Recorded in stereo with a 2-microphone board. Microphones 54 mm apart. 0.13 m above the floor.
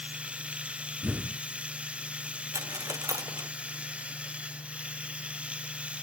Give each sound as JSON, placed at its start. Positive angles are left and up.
{"t": 0.0, "sound": "running water", "side_deg": -20}
{"t": 1.0, "sound": "an explosion", "side_deg": -30}
{"t": 2.5, "sound": "a dropped coin", "side_deg": -75}